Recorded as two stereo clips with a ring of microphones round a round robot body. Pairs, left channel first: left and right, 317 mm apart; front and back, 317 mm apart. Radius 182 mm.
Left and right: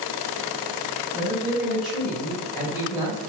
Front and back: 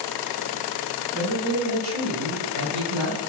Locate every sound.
1.1 s a man speaking: 165° right, 1.7 m; by 3.2 s 140° left, 1.5 m